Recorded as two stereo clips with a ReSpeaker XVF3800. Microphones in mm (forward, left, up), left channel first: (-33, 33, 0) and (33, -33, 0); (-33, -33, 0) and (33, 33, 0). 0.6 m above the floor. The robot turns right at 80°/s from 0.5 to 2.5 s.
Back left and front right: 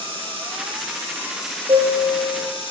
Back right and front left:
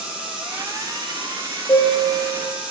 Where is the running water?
35° right, 5.5 m; by 2.7 s 125° left, 5.5 m.